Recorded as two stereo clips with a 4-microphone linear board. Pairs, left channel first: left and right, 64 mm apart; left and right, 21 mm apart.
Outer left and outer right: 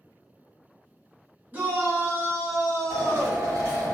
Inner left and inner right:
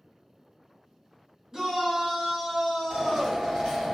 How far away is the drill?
About 1.9 m.